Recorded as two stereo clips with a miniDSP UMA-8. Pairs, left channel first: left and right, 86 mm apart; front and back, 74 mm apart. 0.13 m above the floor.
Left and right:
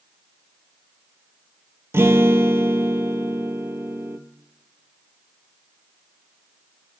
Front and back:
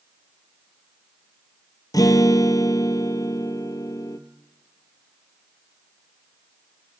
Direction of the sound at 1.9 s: 30° right.